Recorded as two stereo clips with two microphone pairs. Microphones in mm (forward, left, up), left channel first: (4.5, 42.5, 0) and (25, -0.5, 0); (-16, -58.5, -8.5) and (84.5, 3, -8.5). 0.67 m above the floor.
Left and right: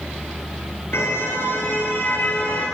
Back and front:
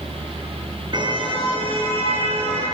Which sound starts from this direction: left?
A car horn, at 0.9 s.